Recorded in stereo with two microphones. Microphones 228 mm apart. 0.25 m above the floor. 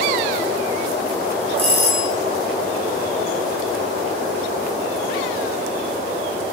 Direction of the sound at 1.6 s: 25° right (ahead or behind).